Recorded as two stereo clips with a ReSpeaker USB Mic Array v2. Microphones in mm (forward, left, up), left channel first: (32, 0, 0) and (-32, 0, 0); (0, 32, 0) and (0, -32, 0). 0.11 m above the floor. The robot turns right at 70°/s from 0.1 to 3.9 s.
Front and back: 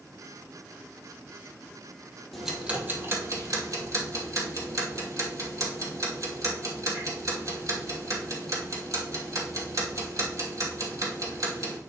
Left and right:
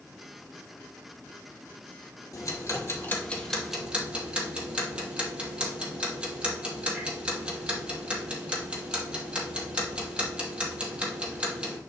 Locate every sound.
2.3 s ticking: 90° left, 2.5 m; by 11.8 s 160° right, 2.5 m